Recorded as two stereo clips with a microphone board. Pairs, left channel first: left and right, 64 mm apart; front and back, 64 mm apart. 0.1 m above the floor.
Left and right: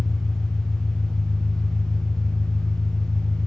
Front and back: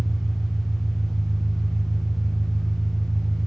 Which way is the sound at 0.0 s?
40° right.